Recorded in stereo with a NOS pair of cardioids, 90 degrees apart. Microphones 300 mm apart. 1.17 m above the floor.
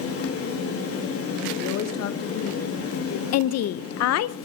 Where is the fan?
50° left, 3 m.